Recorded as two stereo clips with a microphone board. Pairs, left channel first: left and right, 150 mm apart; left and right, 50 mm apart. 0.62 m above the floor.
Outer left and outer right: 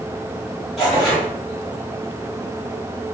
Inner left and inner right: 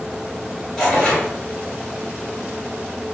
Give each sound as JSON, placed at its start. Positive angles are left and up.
{"t": 0.8, "sound": "tearing paper", "side_deg": 5, "distance_m": 1.7}